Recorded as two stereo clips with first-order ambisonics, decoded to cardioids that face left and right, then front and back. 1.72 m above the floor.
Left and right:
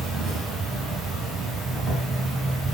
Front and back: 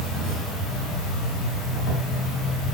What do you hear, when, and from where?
0.0 s an insect: 15° right, 2 m